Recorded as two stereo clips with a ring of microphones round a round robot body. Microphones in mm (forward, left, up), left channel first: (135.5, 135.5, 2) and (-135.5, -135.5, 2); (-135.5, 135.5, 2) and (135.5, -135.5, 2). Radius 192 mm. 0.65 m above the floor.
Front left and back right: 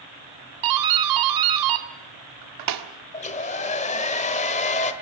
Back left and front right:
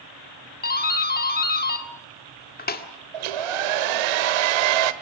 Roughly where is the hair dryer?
Ahead right.